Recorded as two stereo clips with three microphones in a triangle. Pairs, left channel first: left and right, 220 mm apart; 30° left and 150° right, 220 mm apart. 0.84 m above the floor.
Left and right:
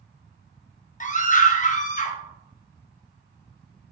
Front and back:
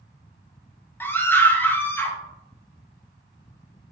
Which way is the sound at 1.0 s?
105° left.